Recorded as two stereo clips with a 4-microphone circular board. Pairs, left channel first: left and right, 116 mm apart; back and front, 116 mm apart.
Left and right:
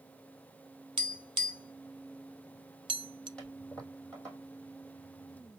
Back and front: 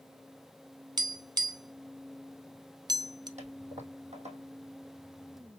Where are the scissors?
I don't hear scissors.